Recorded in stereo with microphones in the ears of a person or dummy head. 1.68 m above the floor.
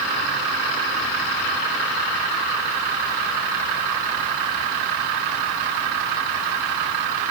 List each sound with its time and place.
Only background noise.